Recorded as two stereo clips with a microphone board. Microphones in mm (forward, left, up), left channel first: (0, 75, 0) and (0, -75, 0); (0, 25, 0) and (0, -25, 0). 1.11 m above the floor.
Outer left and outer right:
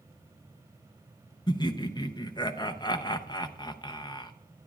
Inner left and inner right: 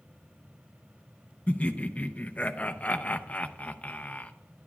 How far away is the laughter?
About 0.6 m.